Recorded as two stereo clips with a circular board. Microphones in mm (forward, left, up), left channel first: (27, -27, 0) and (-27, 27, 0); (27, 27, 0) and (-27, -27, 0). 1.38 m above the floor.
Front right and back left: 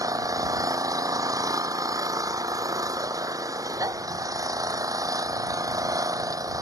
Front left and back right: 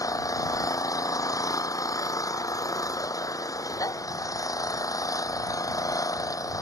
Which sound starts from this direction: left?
An engine running, at 0.0 s.